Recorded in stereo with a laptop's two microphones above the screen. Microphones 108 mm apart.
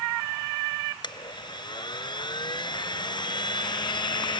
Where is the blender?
45° left (ahead or behind).